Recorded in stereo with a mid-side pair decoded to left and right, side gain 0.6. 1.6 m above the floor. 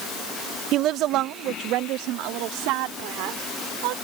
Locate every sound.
0.7 s a woman speaking: 60° right; by 3.9 s 80° right